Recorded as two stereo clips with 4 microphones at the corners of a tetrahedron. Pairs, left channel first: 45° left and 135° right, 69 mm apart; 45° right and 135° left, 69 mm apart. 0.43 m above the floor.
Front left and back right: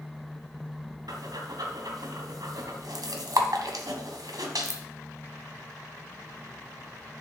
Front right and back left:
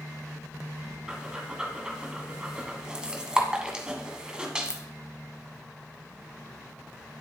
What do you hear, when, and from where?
1.1 s breathing: 150° right, 1.2 m